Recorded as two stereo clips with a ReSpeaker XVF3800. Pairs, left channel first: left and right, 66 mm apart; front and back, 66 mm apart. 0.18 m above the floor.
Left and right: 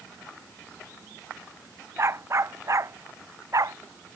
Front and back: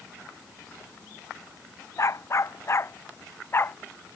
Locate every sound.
2.0 s a dog barking: 45° right; by 3.8 s 55° right